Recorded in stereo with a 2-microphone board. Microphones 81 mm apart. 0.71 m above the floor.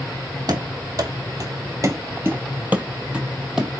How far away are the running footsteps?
About 1.2 m.